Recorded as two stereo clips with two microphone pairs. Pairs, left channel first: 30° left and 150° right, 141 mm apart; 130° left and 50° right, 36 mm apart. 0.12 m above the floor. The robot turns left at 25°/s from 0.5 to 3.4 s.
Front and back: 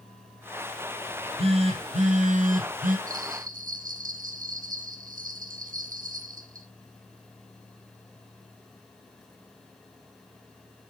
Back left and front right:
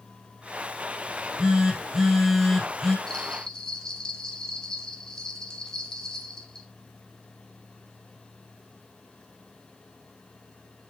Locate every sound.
1.1 s a phone buzzing: 105° right, 2.5 m; by 3.0 s 150° right, 2.5 m
3.1 s a bell: 150° right, 1.8 m; by 6.7 s 160° right, 1.8 m